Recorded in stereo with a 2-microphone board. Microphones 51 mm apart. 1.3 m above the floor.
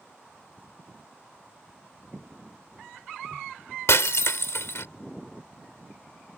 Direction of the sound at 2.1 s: 25° right (ahead or behind).